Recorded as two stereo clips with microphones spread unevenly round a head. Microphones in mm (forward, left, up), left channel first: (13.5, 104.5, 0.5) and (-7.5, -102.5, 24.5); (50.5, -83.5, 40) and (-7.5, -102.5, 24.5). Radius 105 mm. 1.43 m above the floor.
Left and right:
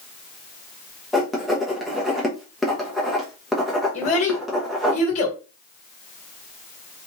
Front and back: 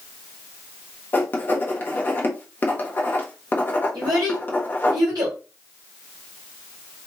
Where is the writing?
10° right, 0.8 m.